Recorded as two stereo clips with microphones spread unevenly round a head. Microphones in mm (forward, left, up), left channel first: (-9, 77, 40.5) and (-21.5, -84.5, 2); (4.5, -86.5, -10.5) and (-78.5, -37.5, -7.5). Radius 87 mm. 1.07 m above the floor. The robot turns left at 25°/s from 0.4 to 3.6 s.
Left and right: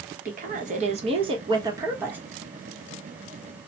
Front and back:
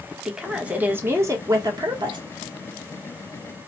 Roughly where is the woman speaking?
Behind right.